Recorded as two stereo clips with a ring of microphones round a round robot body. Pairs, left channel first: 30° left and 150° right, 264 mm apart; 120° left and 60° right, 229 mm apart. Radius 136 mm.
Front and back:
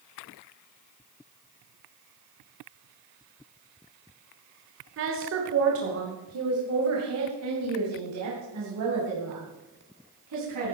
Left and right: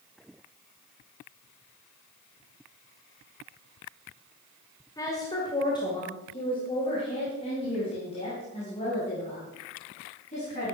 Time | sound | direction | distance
5.0 | a woman speaking | 170° right | 1.7 m